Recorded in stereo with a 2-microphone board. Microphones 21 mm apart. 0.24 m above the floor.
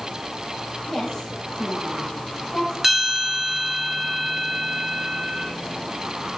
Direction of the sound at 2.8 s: 15° right (ahead or behind).